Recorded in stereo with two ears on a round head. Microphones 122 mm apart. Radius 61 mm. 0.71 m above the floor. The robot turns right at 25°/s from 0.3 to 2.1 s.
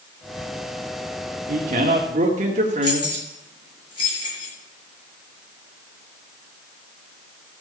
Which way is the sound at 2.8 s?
40° left (ahead or behind).